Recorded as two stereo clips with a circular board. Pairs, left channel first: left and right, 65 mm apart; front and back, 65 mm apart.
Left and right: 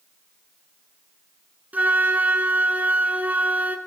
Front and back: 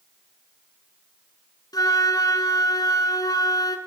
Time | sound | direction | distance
1.7 | a flute | 20° right | 1.2 m